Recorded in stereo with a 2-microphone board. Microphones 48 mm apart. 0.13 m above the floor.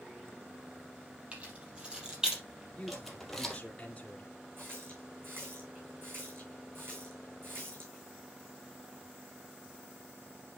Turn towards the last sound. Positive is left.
turn(degrees=-50)  # may be behind; listen again after turning